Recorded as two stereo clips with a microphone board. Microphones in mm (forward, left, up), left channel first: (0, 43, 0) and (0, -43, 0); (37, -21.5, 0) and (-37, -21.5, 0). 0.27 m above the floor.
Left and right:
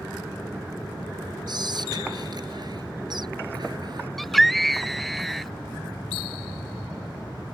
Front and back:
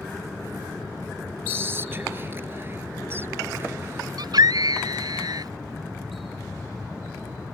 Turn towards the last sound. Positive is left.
turn(degrees=175)